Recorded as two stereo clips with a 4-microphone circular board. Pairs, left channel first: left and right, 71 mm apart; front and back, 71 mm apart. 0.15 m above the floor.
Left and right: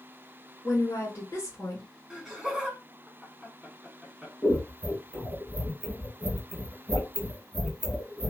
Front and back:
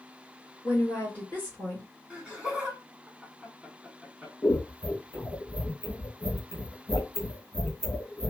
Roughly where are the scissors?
Ahead left.